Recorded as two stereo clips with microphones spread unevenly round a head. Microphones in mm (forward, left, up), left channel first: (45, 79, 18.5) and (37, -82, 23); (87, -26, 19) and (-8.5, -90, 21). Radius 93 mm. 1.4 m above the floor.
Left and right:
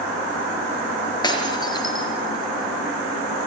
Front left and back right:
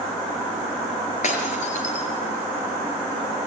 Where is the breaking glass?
25° left, 5 m.